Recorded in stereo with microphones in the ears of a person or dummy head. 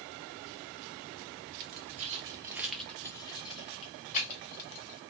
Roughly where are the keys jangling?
Right.